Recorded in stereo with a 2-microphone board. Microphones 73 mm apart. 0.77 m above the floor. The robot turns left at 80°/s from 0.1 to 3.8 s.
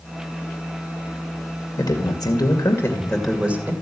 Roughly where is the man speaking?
Behind left.